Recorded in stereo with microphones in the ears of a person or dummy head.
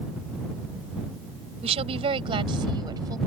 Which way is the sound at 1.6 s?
35° right (ahead or behind).